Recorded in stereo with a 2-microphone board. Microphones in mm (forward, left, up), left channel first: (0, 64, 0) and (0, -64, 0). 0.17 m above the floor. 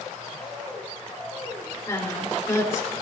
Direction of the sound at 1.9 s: 20° left (ahead or behind).